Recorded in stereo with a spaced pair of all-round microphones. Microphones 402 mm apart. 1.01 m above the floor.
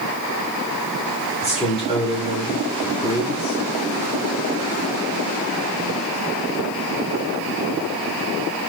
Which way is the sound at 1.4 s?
15° left (ahead or behind).